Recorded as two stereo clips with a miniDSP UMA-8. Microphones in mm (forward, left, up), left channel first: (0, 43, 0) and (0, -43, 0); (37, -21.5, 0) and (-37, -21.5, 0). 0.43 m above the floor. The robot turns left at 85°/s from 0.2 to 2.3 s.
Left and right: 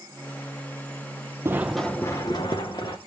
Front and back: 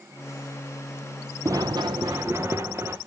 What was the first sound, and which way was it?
Running footsteps, 140° right.